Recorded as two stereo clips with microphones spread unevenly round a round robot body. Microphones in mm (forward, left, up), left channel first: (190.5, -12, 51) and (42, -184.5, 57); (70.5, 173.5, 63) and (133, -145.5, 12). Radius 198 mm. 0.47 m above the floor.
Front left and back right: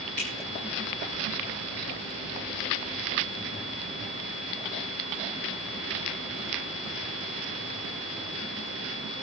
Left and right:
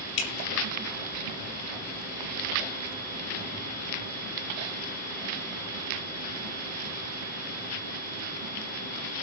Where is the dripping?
120° left, 2.5 m.